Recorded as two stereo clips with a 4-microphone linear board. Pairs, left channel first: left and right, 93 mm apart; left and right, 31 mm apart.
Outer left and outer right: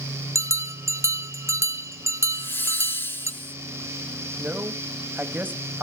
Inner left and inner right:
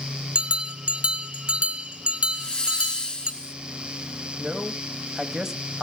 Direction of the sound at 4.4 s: 20° right (ahead or behind).